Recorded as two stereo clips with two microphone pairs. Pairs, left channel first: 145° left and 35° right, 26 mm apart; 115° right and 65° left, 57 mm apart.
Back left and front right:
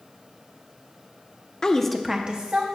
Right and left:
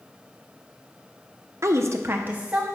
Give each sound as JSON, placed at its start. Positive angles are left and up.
{"t": 1.6, "sound": "a woman speaking", "azimuth_deg": 85, "distance_m": 0.7}